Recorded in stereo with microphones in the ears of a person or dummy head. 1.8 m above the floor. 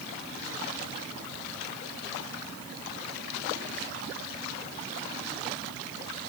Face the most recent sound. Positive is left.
No sound to turn to.